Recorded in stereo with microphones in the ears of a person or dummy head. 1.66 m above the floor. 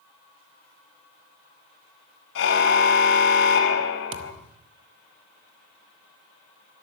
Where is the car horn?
75° left (ahead or behind), 4.5 m.